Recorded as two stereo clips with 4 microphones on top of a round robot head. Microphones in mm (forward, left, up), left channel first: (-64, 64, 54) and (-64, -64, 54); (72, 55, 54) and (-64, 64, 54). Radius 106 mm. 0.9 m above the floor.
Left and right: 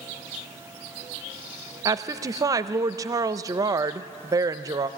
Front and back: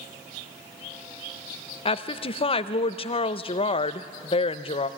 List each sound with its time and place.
1.9 s a woman speaking: 35° right, 0.6 m